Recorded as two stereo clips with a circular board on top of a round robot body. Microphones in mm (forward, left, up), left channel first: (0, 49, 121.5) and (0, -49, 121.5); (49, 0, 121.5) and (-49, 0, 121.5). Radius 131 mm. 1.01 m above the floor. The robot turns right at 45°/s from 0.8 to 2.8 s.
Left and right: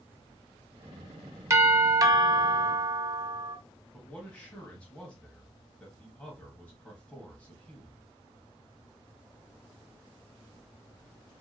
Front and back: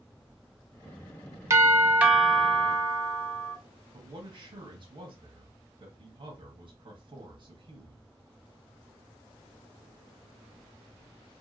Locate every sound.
1.5 s a doorbell: 135° right, 0.8 m; by 3.6 s 75° right, 0.8 m
3.9 s a man speaking: 165° left, 1.1 m